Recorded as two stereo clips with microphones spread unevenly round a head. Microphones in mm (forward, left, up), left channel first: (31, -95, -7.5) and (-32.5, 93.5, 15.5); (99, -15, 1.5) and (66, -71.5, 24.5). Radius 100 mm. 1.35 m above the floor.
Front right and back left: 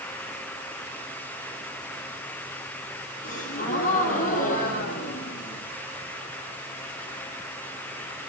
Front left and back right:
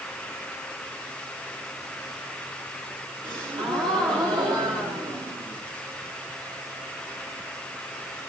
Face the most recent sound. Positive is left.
turn(degrees=-120)